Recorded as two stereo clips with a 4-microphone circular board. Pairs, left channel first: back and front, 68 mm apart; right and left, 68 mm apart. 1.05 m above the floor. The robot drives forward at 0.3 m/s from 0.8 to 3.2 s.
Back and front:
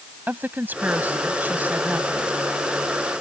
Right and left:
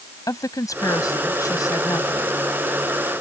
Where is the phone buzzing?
No phone buzzing in this recording.